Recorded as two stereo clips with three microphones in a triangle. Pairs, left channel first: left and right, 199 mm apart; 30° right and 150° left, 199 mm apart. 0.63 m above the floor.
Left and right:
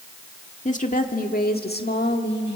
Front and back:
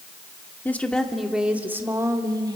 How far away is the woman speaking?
About 1.6 m.